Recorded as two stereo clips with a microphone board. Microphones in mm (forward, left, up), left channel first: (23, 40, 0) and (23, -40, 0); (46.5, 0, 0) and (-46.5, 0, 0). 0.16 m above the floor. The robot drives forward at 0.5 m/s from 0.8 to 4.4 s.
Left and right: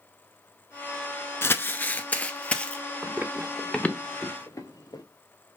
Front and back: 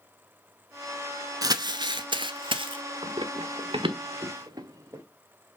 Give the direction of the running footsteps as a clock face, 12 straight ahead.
5 o'clock.